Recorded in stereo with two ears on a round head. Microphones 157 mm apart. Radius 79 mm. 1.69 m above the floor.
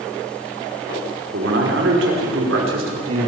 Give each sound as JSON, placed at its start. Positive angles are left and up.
{"t": 1.3, "sound": "a man speaking", "side_deg": -70, "distance_m": 5.5}